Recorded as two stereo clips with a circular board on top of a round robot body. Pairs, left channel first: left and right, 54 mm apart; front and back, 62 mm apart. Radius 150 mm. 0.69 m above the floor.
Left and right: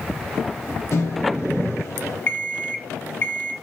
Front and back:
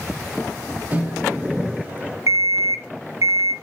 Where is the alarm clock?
145° left, 1.6 m.